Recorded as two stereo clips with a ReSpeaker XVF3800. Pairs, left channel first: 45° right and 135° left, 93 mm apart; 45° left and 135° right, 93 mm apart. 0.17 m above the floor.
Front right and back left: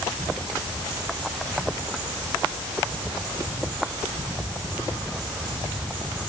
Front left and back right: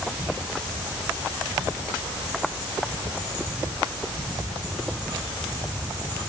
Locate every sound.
Only background noise.